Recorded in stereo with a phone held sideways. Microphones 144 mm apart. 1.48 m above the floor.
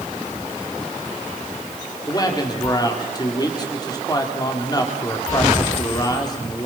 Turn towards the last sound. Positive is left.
turn(degrees=30)  # may be behind; listen again after turning